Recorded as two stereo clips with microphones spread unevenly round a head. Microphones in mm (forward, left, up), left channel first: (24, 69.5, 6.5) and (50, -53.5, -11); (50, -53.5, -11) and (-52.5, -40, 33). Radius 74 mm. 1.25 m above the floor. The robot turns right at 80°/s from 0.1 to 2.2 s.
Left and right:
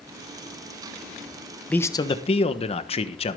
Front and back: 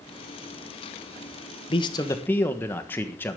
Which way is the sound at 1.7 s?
20° left.